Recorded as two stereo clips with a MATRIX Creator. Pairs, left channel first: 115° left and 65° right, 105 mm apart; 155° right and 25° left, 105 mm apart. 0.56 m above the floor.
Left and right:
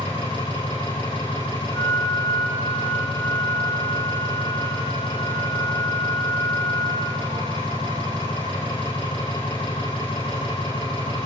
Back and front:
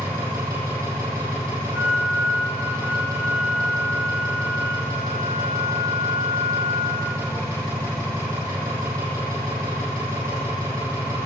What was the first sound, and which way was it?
An engine running, 80° left.